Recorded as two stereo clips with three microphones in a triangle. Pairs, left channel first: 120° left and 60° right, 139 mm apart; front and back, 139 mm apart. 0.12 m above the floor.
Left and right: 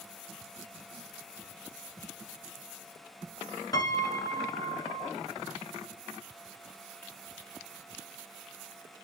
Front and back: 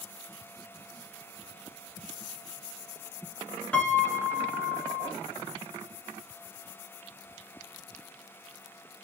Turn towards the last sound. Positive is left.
turn(degrees=75)